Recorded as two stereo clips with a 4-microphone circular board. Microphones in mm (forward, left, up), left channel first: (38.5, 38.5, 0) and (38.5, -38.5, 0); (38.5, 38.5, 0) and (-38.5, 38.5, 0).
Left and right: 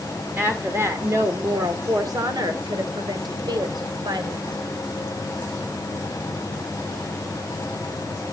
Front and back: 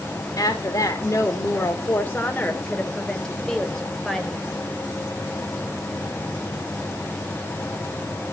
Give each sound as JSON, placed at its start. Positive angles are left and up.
{"t": 0.4, "sound": "a woman speaking", "azimuth_deg": -25, "distance_m": 1.5}